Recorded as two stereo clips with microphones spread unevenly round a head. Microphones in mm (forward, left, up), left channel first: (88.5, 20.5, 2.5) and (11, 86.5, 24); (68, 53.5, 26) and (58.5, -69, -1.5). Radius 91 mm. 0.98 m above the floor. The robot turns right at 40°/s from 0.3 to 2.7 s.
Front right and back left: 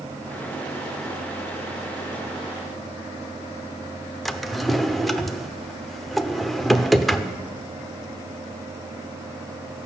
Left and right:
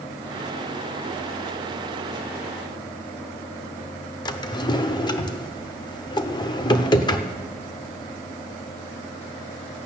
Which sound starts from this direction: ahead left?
A drawer, at 4.2 s.